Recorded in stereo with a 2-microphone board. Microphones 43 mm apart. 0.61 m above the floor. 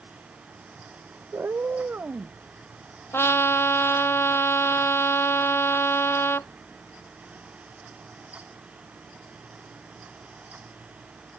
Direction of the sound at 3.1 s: 80° left.